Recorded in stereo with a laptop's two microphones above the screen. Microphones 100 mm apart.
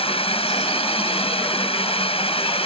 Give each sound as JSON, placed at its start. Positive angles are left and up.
{"t": 0.0, "sound": "a drone", "side_deg": 70}